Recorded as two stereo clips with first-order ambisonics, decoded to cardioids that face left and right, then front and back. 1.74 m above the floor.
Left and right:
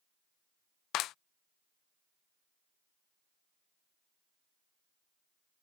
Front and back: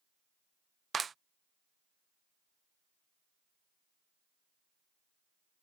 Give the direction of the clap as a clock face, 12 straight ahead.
8 o'clock.